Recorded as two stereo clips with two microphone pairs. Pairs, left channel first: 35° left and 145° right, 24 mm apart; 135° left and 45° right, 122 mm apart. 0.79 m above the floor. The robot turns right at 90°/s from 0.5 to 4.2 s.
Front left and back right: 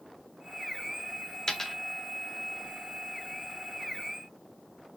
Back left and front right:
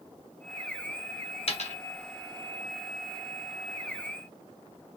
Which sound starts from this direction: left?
A dropped coin, at 1.5 s.